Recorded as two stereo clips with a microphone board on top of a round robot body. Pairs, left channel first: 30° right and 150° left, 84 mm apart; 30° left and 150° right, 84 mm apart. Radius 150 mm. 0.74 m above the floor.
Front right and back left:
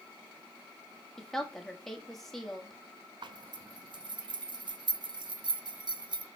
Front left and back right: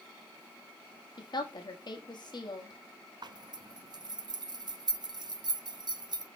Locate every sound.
1.2 s a woman speaking: 55° left, 1.8 m
3.2 s a zipper: 175° left, 0.8 m